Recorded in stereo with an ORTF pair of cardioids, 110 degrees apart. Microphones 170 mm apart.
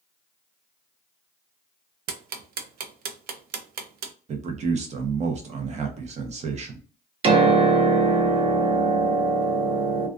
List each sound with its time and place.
2.1 s ticking: 60° right, 0.5 m
4.3 s a man speaking: 40° right, 0.7 m
7.2 s a piano: 35° right, 0.6 m